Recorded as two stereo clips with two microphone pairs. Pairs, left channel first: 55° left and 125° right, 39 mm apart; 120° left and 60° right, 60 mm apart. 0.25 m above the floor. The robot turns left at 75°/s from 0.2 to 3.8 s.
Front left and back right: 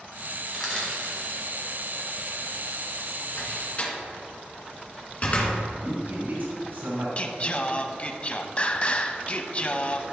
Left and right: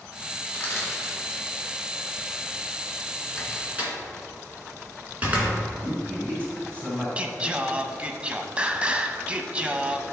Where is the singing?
Straight ahead, 0.5 m.